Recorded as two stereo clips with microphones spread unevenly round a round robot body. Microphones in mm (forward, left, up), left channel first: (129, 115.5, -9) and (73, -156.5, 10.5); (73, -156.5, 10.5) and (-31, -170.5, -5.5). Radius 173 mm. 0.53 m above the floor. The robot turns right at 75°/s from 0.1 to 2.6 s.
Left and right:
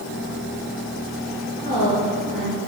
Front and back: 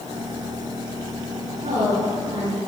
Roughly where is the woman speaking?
Behind left.